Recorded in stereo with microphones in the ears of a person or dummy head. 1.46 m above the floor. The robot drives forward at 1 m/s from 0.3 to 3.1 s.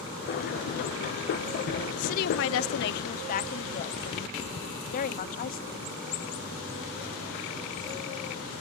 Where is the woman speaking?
40° left (ahead or behind); by 5.8 s 45° left (ahead or behind).